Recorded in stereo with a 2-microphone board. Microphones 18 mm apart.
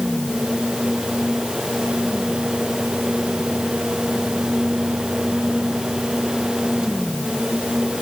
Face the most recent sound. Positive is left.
No sound to turn to.